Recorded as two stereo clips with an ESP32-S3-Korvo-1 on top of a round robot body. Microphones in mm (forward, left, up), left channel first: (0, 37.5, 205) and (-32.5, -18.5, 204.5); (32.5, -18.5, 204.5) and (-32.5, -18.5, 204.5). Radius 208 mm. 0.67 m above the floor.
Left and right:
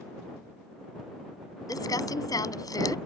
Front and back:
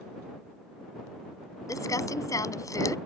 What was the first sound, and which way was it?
Crumpling, 35° left.